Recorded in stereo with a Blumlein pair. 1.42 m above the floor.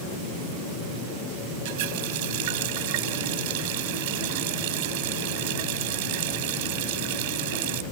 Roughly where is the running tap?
Ahead right.